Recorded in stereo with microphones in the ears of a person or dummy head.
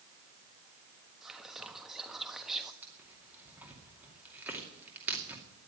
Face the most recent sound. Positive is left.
turn(degrees=-10)  # may be behind; listen again after turning